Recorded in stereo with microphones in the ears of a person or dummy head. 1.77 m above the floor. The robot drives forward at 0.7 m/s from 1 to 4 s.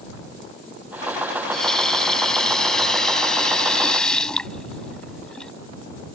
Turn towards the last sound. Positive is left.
turn(degrees=5)  # may be behind; listen again after turning